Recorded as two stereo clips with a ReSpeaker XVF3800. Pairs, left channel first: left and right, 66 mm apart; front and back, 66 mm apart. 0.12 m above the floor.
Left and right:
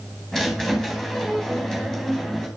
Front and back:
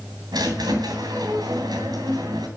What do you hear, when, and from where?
0.3 s a squeak: 175° left, 3 m